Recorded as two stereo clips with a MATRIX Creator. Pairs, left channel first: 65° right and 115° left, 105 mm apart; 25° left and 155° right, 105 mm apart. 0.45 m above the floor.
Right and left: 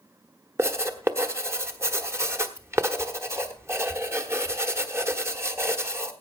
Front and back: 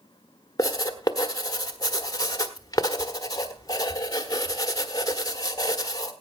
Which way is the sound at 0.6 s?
60° left.